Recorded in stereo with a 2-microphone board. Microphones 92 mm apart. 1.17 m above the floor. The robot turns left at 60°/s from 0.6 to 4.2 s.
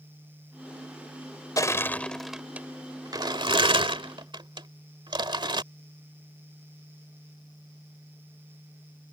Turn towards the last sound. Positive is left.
turn(degrees=-60)  # may be behind; listen again after turning